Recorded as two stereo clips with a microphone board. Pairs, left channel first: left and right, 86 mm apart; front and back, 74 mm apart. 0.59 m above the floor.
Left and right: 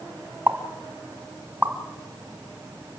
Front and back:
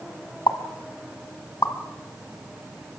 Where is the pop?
20° right, 1.8 m.